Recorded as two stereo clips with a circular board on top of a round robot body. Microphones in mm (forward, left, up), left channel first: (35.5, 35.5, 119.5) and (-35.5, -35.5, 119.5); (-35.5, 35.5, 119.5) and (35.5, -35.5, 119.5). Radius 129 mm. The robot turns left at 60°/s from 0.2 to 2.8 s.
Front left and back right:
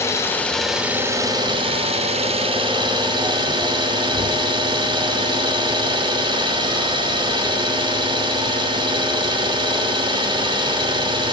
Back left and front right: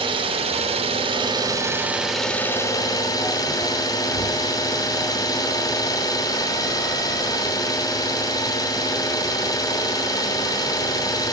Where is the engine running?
20° right, 1.2 m; by 11.3 s 175° right, 1.2 m.